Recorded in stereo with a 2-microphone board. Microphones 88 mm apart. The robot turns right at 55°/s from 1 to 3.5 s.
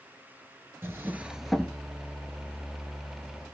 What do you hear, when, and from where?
0.8 s a drawer: 30° right, 0.8 m; by 1.8 s 15° left, 0.8 m